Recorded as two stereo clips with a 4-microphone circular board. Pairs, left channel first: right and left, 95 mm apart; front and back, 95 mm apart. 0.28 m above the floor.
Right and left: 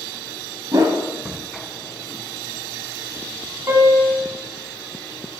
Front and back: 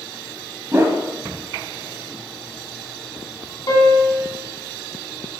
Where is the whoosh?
125° left, 0.9 m.